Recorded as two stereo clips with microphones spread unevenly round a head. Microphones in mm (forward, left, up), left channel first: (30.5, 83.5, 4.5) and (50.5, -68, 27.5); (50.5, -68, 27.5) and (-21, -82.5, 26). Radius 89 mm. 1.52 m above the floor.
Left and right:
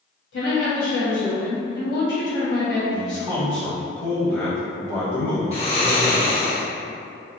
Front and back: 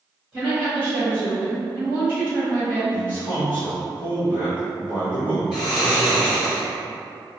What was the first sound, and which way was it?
A woman speaking, 100° left.